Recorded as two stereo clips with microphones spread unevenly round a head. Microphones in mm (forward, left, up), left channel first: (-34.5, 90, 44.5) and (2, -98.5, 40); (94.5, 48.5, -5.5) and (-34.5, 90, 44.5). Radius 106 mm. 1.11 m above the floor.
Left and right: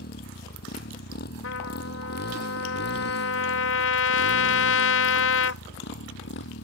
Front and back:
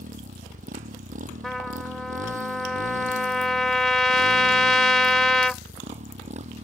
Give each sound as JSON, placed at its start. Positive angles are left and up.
{"t": 0.0, "sound": "a motorcycle", "azimuth_deg": 140}
{"t": 1.4, "sound": "a trumpet", "azimuth_deg": 75}